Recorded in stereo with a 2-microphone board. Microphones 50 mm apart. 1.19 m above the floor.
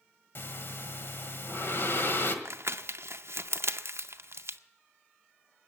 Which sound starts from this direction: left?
Breathing, at 0.3 s.